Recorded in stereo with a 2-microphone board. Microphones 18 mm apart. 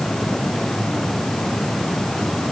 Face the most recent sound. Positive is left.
No sound to turn to.